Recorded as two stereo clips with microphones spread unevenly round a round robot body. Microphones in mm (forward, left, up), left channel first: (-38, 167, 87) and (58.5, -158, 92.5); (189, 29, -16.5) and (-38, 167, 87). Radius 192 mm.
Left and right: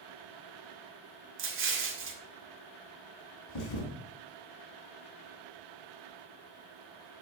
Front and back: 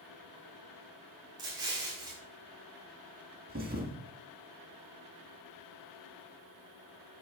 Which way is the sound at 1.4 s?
120° right.